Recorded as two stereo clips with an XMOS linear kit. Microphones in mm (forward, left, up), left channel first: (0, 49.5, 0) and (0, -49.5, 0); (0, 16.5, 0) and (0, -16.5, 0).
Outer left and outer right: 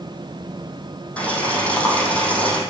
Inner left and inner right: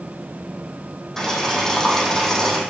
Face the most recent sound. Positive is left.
turn(degrees=15)  # may be behind; listen again after turning